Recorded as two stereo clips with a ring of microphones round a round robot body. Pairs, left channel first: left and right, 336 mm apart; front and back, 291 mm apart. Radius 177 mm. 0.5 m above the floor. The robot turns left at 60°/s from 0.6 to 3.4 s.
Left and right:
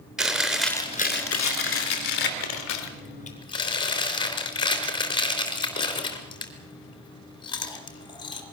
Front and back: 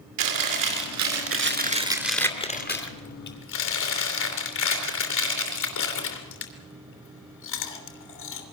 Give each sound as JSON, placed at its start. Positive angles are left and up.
{"t": 0.2, "sound": "chewing", "azimuth_deg": 180, "distance_m": 3.0}